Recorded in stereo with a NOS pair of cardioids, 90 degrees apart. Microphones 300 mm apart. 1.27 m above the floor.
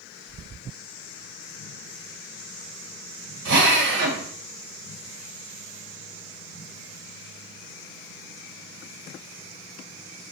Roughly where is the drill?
Right.